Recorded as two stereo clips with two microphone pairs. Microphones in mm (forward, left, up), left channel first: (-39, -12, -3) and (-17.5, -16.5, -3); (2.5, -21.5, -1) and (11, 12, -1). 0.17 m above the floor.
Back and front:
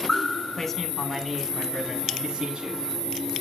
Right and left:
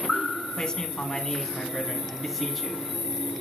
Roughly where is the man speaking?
Behind right.